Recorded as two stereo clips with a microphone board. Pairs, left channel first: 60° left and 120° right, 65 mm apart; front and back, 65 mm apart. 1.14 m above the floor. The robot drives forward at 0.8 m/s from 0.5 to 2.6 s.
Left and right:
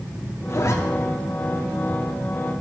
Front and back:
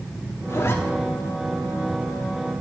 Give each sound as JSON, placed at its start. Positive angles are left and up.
{"t": 0.5, "sound": "a zipper", "azimuth_deg": 30, "distance_m": 0.9}